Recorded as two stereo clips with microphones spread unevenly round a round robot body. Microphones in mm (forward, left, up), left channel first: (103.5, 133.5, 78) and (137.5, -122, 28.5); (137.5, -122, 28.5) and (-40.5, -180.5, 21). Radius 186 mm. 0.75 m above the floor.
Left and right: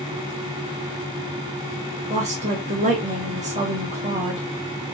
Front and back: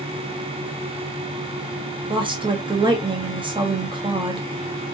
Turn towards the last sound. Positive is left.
turn(degrees=-110)